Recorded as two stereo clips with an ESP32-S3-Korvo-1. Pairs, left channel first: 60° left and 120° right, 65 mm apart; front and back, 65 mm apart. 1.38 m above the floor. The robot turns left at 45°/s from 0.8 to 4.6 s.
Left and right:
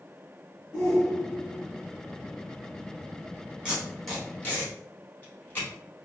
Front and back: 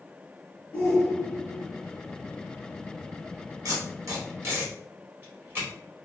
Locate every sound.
0.7 s a shout: 55° right, 1.7 m; by 1.6 s 95° right, 1.7 m
3.6 s tape being pulled: 165° left, 2 m; by 5.7 s 125° left, 2 m